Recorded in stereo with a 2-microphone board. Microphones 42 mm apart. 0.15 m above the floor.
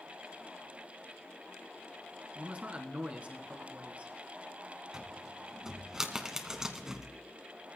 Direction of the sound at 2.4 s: 30° right (ahead or behind).